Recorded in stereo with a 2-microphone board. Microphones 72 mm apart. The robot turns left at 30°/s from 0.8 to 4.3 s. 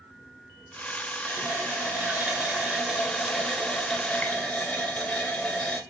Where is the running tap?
115° right, 0.9 m; by 5.8 s 155° left, 0.9 m.